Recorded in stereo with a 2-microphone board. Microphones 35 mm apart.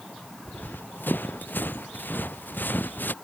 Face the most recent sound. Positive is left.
turn(degrees=70)  # may be behind; listen again after turning